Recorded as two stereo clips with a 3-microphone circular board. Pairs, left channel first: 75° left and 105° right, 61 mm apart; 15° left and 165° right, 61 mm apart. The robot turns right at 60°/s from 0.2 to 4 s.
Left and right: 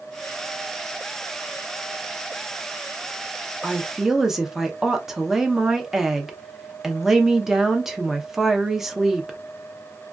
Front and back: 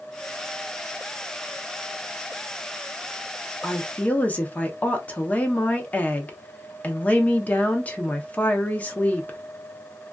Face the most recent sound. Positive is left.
turn(degrees=-30)